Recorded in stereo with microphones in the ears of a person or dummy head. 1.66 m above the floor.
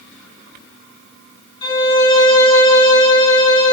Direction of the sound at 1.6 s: 20° left (ahead or behind).